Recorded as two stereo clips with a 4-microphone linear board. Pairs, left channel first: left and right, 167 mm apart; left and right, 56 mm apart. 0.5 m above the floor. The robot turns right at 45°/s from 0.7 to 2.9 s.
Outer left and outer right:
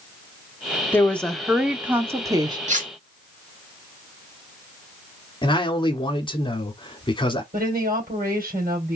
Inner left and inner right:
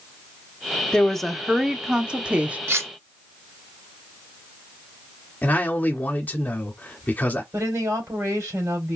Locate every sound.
0.9 s a woman speaking: 155° left, 0.8 m; by 2.6 s 130° right, 0.8 m
2.7 s cutlery clinking: 45° right (ahead or behind), 1.0 m; by 2.9 s 55° right (ahead or behind), 1.0 m
5.4 s a man speaking: 30° left (ahead or behind), 1.2 m
7.5 s a woman speaking: 60° right (ahead or behind), 3 m